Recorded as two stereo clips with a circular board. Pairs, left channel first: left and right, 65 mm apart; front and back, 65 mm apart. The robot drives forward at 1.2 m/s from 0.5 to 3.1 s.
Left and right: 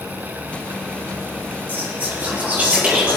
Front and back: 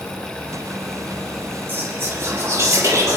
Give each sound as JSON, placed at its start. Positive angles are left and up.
{"t": 1.7, "sound": "whispering", "azimuth_deg": -140, "distance_m": 2.0}